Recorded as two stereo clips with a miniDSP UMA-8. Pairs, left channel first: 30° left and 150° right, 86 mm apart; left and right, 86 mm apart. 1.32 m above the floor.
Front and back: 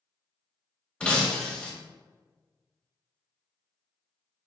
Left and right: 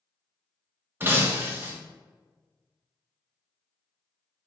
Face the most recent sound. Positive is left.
turn(degrees=-40)